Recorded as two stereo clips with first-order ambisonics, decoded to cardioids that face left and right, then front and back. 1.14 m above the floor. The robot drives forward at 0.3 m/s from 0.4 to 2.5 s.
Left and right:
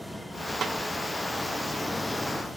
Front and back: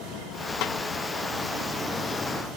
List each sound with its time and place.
0.6 s a snare drum: 30° right, 0.8 m; by 0.8 s 35° right, 0.7 m